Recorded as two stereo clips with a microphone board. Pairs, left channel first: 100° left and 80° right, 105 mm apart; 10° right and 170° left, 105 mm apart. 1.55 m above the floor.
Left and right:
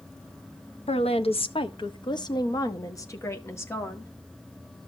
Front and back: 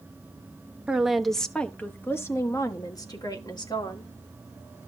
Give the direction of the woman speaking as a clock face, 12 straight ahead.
9 o'clock.